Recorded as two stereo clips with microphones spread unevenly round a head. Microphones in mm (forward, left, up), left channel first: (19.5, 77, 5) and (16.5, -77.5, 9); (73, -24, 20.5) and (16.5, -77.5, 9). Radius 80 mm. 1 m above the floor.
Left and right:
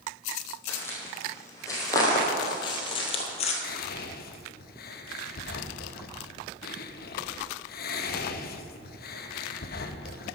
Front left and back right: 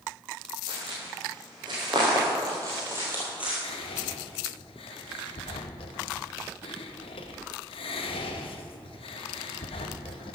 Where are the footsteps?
165° left, 3 m; by 3.5 s 135° left, 1.7 m.